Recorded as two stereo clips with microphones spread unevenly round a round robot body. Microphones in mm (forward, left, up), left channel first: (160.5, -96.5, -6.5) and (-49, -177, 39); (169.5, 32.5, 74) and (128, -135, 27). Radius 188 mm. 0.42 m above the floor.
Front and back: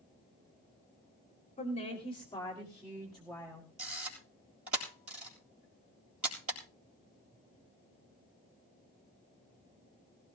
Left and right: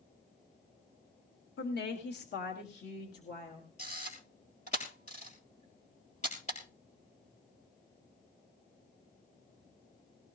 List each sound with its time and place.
1.6 s a woman speaking: 65° left, 1.6 m; by 3.7 s 110° left, 1.8 m
3.8 s a camera shutter: 145° left, 2.5 m